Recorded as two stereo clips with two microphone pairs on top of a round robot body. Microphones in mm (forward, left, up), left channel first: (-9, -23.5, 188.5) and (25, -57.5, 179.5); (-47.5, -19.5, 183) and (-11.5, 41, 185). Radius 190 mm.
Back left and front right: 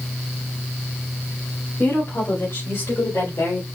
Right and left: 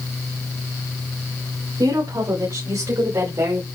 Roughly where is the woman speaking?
Left.